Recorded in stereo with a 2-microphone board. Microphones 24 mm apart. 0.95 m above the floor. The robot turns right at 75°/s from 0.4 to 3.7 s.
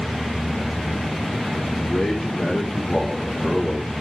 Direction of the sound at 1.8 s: 110° left.